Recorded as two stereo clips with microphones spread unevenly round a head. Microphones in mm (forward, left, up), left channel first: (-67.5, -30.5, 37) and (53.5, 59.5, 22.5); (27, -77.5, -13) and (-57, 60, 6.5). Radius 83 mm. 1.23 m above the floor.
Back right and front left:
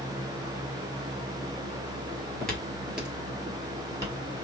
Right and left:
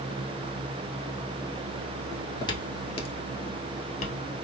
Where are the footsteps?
105° right, 1.2 m; by 4.5 s 30° right, 1.7 m.